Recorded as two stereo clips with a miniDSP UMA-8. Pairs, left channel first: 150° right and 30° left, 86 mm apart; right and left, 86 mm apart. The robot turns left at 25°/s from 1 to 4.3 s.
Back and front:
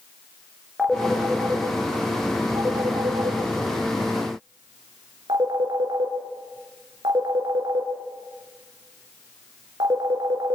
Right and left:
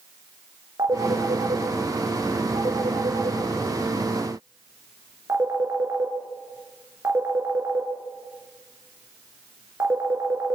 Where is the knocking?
I don't hear knocking.